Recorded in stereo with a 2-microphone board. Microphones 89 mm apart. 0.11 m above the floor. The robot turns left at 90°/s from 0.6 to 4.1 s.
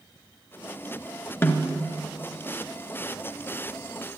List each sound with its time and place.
1.4 s a snare drum: 25° left (ahead or behind), 1.3 m; by 1.8 s 20° left (ahead or behind), 1.3 m